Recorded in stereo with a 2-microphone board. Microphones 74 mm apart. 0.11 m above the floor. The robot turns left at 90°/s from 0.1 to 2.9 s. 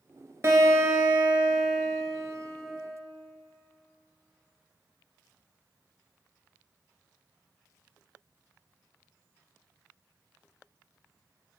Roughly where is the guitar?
Right.